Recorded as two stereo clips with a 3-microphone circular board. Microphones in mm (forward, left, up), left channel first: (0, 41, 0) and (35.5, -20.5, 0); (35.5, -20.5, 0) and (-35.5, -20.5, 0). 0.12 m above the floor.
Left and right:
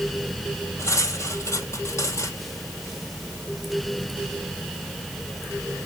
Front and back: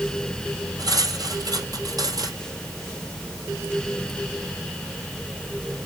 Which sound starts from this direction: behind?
Cutlery clinking, at 0.8 s.